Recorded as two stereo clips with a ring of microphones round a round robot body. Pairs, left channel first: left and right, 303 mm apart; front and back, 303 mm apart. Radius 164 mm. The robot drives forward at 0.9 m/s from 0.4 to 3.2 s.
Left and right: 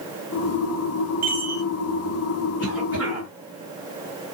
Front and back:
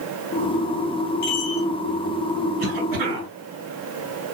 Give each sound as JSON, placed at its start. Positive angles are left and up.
{"t": 1.2, "sound": "a chime", "azimuth_deg": -30, "distance_m": 3.0}
{"t": 2.6, "sound": "a cough", "azimuth_deg": -175, "distance_m": 3.5}